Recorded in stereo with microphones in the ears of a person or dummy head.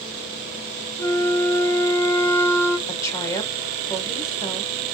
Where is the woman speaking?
15° left (ahead or behind), 1.3 m.